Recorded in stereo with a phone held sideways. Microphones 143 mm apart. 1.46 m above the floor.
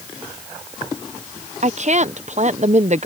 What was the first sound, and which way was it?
A woman speaking, 55° right (ahead or behind).